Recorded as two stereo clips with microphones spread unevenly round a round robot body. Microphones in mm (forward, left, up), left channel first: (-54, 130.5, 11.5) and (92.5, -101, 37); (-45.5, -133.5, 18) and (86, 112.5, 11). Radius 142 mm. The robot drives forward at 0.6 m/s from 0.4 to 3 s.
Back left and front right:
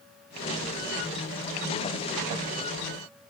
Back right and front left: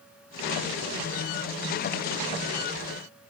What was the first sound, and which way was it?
Only background noise.